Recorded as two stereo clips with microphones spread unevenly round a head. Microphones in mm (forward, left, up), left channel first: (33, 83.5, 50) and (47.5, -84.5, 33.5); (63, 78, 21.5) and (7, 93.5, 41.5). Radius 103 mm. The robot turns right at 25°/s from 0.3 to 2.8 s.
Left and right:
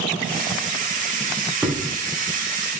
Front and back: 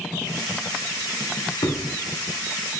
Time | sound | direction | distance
1.6 | a thud | straight ahead | 1.0 m